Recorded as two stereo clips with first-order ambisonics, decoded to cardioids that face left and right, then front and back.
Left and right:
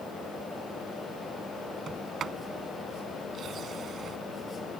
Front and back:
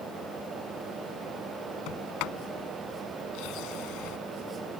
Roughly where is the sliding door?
Ahead right.